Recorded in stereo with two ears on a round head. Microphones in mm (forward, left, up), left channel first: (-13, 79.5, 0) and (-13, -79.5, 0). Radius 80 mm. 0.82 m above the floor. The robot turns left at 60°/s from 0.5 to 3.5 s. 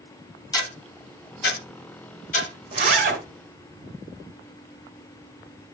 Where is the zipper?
30° right (ahead or behind), 2.5 m; by 3.2 s 60° right (ahead or behind), 2.5 m.